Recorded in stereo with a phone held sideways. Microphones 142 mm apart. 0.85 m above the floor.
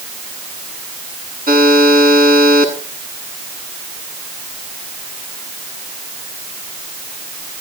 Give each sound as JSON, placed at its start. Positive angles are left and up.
{"t": 1.5, "sound": "a buzzer", "side_deg": -85, "distance_m": 8.0}